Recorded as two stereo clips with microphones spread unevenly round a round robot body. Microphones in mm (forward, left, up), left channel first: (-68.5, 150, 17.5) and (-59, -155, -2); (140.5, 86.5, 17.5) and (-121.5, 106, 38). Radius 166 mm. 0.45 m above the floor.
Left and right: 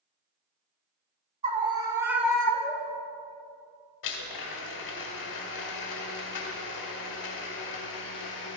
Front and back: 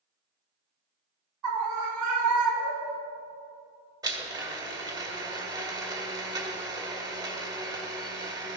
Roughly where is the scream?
Behind.